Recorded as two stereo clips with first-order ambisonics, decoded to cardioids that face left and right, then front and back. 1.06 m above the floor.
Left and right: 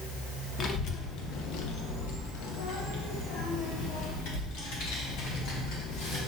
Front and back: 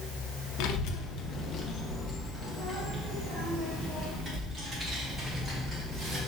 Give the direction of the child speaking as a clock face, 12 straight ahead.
11 o'clock.